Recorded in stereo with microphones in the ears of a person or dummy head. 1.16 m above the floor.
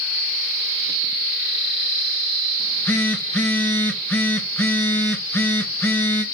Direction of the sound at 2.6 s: 15° left (ahead or behind).